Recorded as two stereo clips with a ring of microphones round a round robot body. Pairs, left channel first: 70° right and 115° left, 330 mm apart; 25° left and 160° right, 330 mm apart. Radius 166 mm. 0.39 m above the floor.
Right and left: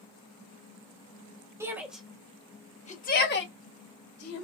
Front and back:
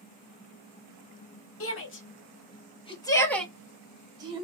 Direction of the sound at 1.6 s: 35° left.